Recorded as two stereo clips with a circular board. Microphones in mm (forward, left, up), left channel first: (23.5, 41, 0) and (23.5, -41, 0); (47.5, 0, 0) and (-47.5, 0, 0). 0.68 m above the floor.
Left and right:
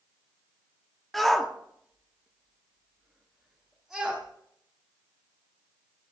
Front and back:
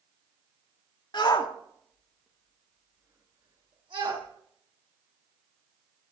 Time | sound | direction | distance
1.1 | a shout | 5° left | 1.5 m